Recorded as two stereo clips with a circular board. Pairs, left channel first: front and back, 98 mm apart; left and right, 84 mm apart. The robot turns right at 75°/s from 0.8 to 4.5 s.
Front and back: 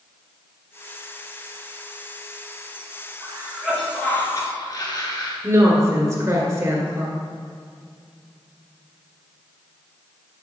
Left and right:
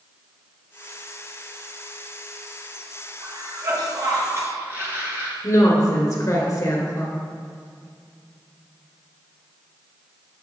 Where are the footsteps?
No footsteps in this recording.